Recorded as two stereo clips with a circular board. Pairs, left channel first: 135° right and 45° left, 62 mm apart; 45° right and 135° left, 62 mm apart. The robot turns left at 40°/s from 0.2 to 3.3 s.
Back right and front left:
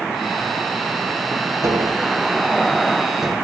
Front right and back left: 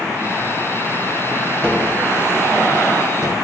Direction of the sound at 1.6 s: 25° left.